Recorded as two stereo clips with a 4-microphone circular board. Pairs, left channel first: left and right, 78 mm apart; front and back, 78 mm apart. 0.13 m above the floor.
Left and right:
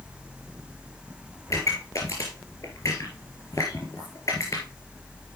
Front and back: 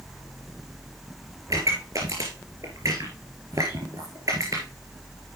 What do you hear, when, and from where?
1.5 s a pop: 140° left, 3.5 m